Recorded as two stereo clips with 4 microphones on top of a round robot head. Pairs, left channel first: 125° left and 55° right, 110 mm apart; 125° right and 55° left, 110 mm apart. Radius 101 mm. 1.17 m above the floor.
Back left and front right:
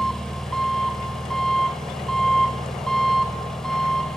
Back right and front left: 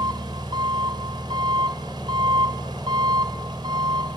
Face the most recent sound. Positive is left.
turn(degrees=45)